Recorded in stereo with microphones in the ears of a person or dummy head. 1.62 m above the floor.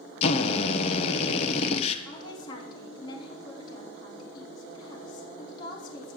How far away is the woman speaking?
About 4 m.